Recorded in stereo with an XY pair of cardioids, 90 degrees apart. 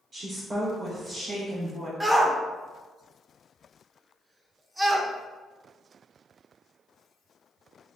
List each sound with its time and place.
0.1 s a woman speaking: 50° right, 0.9 m; by 1.9 s 40° right, 3 m
2.0 s a shout: 15° right, 0.9 m